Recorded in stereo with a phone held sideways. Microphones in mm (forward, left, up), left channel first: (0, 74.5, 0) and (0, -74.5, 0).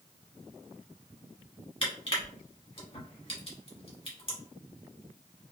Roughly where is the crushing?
Left.